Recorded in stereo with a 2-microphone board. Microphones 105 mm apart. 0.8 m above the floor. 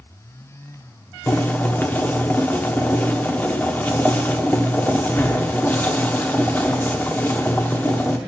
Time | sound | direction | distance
1.3 | boiling | 20° left (ahead or behind) | 1.0 m